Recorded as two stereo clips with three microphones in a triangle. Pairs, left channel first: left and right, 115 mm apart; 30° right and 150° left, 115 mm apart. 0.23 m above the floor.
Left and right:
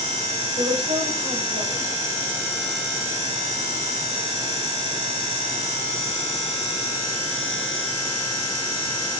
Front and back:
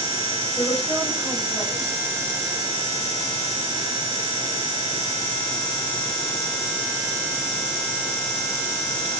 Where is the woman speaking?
115° right, 10 m.